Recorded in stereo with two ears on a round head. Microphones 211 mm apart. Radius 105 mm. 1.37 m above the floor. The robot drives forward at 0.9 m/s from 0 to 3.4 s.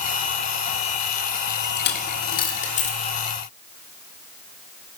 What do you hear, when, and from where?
1.8 s a dropped coin: 45° left (ahead or behind), 1.2 m; by 3.2 s 25° left (ahead or behind), 1.9 m